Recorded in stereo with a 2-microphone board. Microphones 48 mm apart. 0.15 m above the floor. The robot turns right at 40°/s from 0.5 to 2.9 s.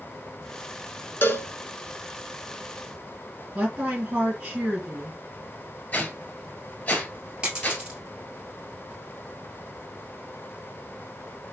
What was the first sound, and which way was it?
A cowbell, 50° left (ahead or behind).